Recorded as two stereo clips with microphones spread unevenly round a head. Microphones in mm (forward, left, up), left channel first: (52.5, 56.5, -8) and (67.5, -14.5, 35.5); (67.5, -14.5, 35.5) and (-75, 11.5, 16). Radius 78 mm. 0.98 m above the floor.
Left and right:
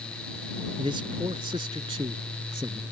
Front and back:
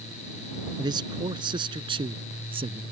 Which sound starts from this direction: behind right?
A man speaking, at 0.8 s.